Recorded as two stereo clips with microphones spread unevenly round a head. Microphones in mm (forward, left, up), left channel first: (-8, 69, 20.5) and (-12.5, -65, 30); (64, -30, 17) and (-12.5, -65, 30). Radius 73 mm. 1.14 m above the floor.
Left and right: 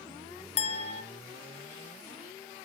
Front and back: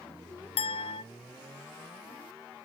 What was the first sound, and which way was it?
A clink, 45° left.